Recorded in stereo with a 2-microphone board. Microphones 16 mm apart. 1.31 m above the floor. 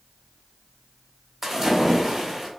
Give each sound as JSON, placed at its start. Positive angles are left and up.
{"t": 1.4, "sound": "a splash", "side_deg": -5, "distance_m": 1.1}